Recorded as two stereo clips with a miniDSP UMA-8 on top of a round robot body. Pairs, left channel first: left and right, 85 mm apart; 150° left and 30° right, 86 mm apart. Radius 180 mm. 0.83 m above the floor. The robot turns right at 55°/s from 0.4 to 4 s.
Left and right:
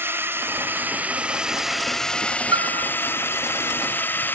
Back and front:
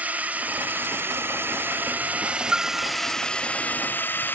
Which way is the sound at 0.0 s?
80° right.